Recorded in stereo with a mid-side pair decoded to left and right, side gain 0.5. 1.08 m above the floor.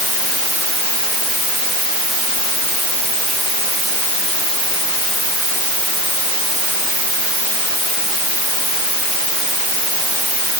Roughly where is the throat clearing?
I don't hear throat clearing.